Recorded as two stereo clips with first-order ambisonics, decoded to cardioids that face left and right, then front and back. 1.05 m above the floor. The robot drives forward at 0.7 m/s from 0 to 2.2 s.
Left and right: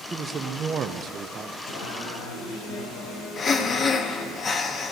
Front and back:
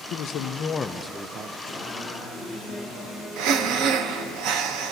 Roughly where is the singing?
Left.